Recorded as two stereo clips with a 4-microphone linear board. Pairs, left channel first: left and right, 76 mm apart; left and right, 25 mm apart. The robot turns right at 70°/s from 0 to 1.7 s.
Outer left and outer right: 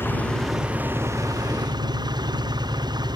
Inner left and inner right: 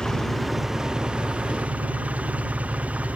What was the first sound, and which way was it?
An engine running, 145° left.